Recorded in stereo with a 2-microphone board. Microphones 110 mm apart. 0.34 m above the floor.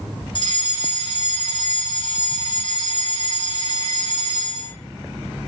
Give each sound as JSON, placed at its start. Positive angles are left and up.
{"t": 0.3, "sound": "a fire alarm", "side_deg": 45, "distance_m": 4.5}